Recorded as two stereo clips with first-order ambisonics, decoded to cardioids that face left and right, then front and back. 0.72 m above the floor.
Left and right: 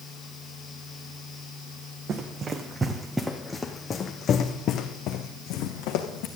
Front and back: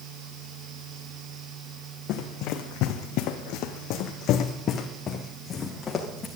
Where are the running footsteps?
30° right, 1.8 m; by 6.3 s 70° left, 2.5 m.